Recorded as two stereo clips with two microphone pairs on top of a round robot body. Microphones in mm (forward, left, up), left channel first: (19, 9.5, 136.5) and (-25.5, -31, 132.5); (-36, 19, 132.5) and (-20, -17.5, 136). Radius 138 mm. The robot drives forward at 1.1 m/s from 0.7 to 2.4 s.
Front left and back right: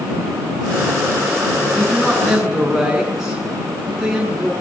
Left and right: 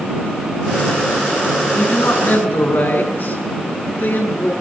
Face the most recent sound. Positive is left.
turn(degrees=140)